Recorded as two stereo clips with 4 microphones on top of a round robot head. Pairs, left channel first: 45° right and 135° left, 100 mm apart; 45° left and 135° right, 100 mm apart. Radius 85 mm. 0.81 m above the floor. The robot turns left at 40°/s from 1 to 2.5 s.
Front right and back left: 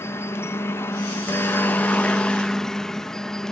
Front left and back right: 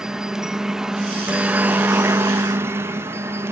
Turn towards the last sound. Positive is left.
turn(degrees=-120)